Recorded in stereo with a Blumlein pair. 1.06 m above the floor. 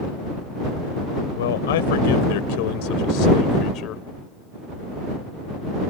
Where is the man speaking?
60° left; by 4.0 s 35° left.